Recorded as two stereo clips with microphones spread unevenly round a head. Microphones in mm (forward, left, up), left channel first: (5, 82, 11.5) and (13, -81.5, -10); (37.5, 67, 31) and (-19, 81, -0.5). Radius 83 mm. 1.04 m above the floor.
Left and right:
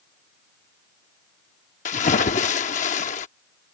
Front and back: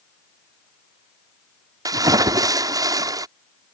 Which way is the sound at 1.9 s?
135° left.